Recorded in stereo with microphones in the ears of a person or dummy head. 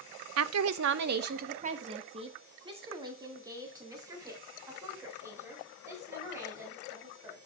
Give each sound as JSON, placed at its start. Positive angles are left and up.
{"t": 0.4, "sound": "a woman speaking", "side_deg": -75, "distance_m": 0.6}